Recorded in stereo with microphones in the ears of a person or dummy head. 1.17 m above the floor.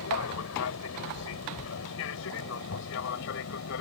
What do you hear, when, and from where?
0.0 s an aircraft: 75° left (ahead or behind); by 3.8 s 65° left (ahead or behind)